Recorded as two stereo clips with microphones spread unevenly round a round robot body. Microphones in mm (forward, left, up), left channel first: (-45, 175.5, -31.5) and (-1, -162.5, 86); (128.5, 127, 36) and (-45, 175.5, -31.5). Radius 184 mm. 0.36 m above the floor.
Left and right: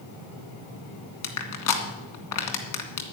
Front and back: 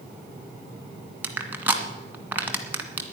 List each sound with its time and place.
1.2 s crushing: 90° left, 2 m